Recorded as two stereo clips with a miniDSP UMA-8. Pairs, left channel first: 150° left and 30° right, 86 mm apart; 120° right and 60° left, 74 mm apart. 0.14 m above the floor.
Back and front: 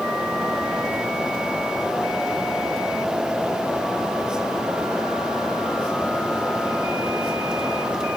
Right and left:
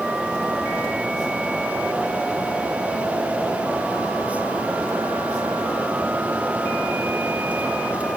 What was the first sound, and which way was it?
Only background noise.